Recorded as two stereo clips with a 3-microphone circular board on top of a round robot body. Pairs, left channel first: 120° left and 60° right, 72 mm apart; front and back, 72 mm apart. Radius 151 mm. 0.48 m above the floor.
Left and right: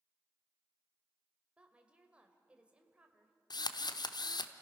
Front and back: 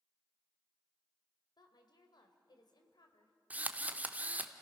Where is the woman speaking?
15° left, 2 m.